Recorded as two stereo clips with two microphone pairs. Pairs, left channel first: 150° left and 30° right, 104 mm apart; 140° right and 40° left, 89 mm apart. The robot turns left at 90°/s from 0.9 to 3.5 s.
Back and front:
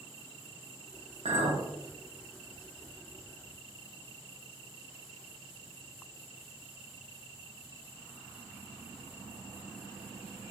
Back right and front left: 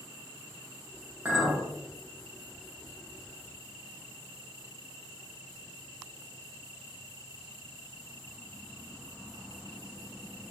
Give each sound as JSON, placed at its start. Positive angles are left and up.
{"t": 1.2, "sound": "a clink", "azimuth_deg": -30, "distance_m": 0.6}